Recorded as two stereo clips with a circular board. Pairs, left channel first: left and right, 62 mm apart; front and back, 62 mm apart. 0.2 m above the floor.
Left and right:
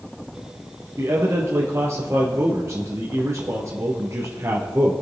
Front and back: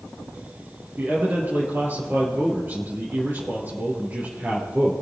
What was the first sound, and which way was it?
A man speaking, 125° right.